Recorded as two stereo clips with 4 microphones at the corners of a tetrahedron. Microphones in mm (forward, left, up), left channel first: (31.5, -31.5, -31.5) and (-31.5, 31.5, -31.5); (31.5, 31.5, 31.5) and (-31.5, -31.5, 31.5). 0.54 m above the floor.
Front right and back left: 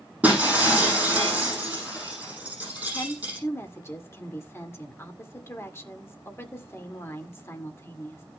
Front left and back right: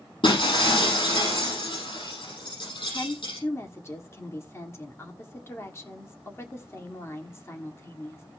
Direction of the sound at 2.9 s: Straight ahead.